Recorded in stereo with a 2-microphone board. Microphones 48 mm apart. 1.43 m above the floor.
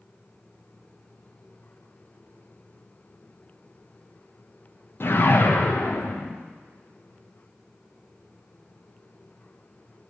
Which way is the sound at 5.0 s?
50° left (ahead or behind).